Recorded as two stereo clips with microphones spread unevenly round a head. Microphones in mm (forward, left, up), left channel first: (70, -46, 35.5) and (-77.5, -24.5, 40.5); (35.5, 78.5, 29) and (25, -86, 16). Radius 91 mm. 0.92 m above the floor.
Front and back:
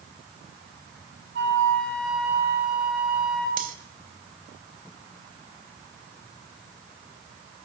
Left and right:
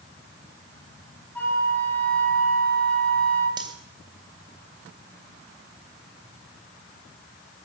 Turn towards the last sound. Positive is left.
turn(degrees=-160)